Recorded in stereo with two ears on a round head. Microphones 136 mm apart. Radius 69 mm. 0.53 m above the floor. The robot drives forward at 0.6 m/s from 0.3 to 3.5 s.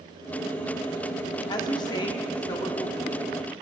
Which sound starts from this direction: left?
A woman speaking, at 1.5 s.